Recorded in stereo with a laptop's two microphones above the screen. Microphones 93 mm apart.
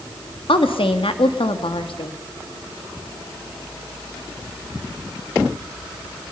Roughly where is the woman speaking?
Left.